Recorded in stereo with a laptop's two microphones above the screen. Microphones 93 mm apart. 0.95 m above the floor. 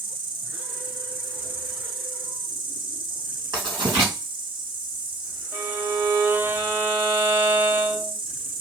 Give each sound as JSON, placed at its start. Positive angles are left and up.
{"t": 0.0, "sound": "an insect", "side_deg": -60, "distance_m": 0.8}
{"t": 3.5, "sound": "writing", "side_deg": -50, "distance_m": 2.5}
{"t": 5.5, "sound": "a violin", "side_deg": -25, "distance_m": 0.7}